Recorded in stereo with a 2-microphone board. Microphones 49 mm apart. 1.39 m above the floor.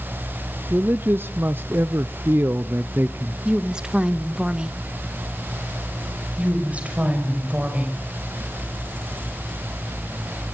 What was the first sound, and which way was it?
A man speaking, 45° right (ahead or behind).